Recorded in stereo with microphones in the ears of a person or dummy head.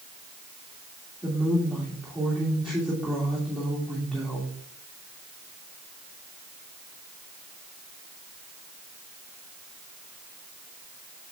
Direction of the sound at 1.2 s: 5° right (ahead or behind).